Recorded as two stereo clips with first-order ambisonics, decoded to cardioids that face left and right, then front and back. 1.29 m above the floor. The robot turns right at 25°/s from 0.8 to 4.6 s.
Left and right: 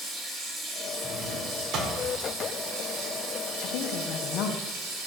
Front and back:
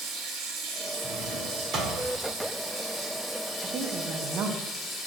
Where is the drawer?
145° right, 1.4 m; by 2.0 s 125° right, 1.4 m.